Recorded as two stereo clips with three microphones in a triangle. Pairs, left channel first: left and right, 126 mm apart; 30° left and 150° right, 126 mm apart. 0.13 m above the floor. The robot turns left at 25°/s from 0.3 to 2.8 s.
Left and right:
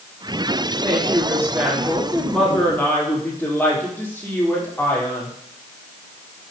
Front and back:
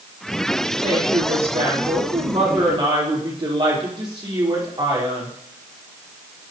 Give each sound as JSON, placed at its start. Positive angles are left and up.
{"t": 0.8, "sound": "a woman speaking", "azimuth_deg": -145, "distance_m": 4.5}